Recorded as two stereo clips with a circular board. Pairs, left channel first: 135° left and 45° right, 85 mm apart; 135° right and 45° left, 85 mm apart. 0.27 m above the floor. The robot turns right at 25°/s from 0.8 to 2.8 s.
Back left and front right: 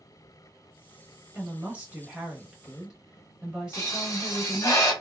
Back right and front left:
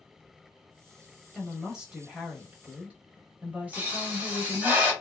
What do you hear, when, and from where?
1.4 s a woman speaking: 25° right, 1.0 m; by 4.7 s 10° left, 1.0 m
3.7 s a pop: 105° left, 1.3 m